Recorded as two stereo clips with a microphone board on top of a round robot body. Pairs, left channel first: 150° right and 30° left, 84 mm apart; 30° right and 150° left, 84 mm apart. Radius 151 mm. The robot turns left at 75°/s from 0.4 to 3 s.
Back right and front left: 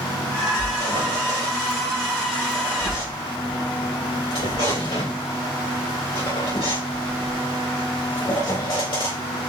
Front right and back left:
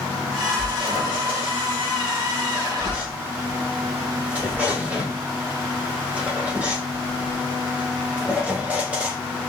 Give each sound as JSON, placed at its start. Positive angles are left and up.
{"t": 0.6, "sound": "a squeak", "azimuth_deg": 50, "distance_m": 2.5}